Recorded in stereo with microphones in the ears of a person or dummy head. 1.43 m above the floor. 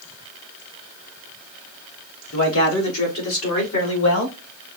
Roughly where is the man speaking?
Left.